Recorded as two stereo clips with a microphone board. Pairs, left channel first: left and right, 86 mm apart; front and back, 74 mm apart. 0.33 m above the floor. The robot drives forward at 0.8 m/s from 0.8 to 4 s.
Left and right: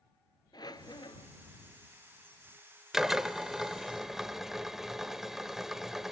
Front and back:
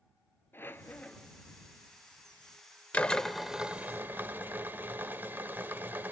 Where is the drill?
15° right, 1.0 m; by 6.1 s 170° right, 1.1 m.